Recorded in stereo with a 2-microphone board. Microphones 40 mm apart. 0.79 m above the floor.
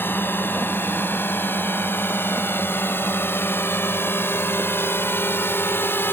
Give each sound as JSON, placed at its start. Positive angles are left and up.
{"t": 0.0, "sound": "a drone", "side_deg": 55}